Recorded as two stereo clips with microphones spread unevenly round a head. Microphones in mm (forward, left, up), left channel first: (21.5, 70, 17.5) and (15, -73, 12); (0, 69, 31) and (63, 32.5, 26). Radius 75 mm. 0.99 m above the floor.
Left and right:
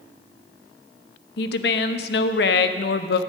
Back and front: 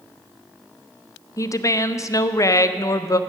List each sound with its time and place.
1.4 s a woman speaking: 105° left, 0.6 m